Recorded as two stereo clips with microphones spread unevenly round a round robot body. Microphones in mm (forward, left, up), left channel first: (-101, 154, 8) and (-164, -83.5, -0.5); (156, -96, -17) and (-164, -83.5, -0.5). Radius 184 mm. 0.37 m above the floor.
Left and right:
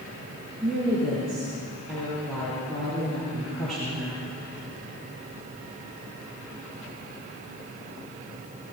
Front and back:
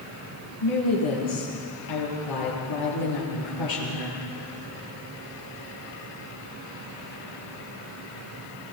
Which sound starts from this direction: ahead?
A woman speaking, at 0.6 s.